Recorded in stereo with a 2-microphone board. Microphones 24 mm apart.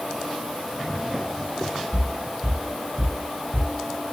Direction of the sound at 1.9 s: 40° right (ahead or behind).